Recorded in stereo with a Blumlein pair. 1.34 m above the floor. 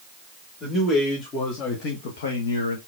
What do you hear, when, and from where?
0.6 s a man speaking: 15° left, 1.9 m; by 2.8 s 80° left, 0.9 m